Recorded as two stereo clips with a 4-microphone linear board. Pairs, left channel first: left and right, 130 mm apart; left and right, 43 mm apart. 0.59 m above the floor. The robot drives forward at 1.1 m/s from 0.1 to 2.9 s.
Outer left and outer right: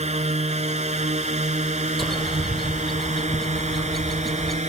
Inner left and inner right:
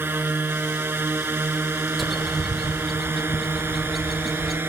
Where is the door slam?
I don't hear a door slam.